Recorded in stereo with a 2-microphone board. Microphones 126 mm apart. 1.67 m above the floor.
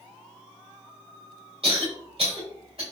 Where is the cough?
50° right (ahead or behind), 1.6 m.